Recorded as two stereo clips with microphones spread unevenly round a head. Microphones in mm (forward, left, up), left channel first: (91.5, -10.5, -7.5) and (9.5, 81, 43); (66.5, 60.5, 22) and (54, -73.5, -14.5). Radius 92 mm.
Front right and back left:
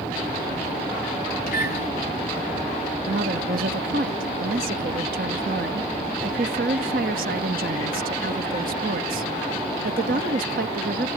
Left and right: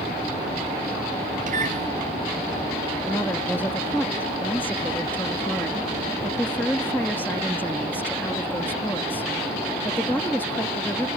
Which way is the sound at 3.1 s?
170° left.